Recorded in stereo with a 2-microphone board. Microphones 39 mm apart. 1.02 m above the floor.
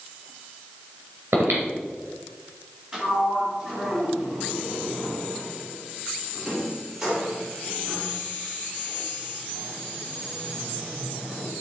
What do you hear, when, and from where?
1.3 s breathing: 60° right (ahead or behind), 3 m
2.9 s a sliding door: 10° right (ahead or behind), 2.5 m